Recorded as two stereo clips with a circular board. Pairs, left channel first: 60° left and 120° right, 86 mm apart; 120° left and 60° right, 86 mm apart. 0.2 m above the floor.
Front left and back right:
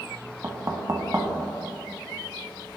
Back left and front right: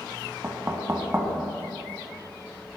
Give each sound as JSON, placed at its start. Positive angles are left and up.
{"t": 0.4, "sound": "knocking", "azimuth_deg": -100, "distance_m": 0.9}